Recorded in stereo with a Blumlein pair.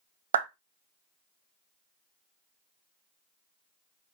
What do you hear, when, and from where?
0.3 s a clap: 65° right, 0.5 m